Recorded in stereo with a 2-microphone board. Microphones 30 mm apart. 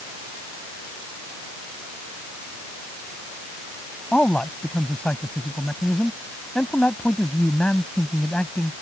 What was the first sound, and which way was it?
A man speaking, 45° left (ahead or behind).